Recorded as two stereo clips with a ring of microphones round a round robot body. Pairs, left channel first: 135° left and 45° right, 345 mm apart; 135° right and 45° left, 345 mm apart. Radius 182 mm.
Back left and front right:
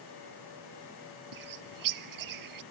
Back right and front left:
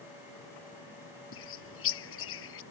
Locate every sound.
1.3 s a bird: 80° right